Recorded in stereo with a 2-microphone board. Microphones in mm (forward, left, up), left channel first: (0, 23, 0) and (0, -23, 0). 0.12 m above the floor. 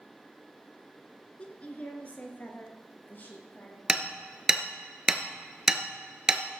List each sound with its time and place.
1.4 s a woman speaking: 30° left (ahead or behind), 1.7 m; by 3.8 s 45° left (ahead or behind), 3.5 m
3.9 s hammering: 15° right (ahead or behind), 1.1 m